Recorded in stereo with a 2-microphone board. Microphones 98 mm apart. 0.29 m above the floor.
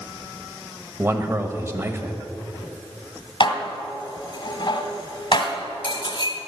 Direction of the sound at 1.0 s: 25° right (ahead or behind).